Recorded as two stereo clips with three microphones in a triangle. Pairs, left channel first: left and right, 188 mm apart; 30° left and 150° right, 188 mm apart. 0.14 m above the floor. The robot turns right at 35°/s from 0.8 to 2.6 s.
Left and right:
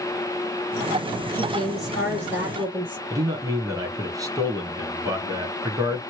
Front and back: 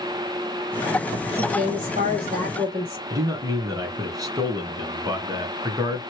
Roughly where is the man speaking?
Behind right.